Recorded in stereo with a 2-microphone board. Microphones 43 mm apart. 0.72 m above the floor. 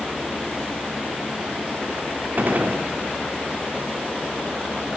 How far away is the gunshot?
About 0.9 m.